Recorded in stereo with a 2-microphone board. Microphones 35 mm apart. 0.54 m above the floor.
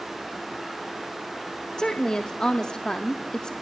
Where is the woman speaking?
25° left (ahead or behind), 0.6 m.